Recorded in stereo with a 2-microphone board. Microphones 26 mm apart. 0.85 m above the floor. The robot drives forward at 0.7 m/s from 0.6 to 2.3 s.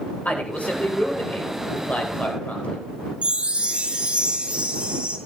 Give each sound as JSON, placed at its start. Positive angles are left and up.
{"t": 0.2, "sound": "a man speaking", "side_deg": 75, "distance_m": 4.0}
{"t": 3.2, "sound": "a chime", "side_deg": -50, "distance_m": 1.8}